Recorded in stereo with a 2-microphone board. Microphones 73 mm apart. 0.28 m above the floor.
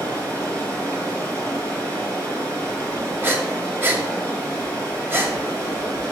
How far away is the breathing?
About 1.1 m.